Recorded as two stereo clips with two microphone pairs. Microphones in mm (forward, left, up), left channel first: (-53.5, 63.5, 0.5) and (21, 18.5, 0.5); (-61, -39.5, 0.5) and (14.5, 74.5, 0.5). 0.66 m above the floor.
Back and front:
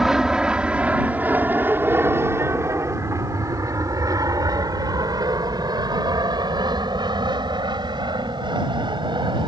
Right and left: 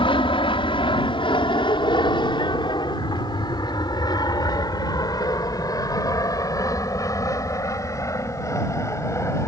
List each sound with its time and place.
0.0 s an aircraft: 115° right; by 9.5 s 55° right